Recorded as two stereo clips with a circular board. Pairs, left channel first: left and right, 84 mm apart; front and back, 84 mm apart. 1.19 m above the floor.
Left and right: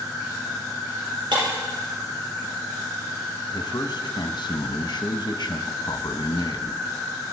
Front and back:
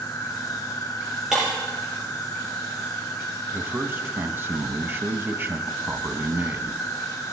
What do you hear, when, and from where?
0.0 s an insect: 45° right, 3 m
1.3 s breaking glass: 100° right, 6.5 m
3.5 s a man speaking: 115° left, 0.9 m